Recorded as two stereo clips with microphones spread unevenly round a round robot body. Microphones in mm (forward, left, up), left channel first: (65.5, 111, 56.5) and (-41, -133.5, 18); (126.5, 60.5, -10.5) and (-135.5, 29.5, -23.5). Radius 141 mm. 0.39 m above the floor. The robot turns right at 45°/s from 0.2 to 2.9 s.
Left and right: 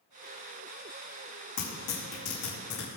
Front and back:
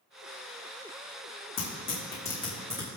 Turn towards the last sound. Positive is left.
turn(degrees=115)